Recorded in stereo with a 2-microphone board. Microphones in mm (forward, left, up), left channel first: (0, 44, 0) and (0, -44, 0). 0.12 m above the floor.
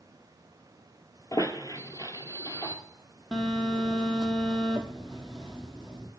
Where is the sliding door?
No sliding door in this recording.